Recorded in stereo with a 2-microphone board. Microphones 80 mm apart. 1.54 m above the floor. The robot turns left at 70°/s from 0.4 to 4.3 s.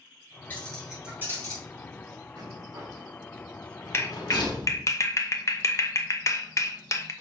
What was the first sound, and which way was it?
Keys jangling, 25° left (ahead or behind).